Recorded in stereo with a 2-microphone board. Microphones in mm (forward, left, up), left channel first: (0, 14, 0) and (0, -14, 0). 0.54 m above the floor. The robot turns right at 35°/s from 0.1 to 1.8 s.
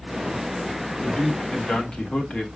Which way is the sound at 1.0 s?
45° left (ahead or behind).